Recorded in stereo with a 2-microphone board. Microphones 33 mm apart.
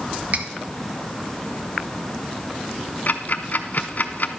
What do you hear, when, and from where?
0.3 s cutlery clinking: 45° right (ahead or behind), 0.8 m
3.1 s ticking: 55° left (ahead or behind), 0.7 m